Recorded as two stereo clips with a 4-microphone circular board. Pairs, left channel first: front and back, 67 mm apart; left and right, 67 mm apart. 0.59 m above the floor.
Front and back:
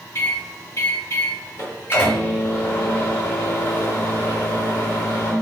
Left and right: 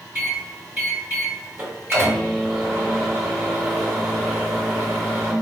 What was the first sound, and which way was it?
A microwave, 40° right.